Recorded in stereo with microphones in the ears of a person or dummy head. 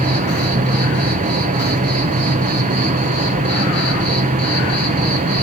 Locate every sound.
0.0 s an insect: 35° right (ahead or behind), 0.9 m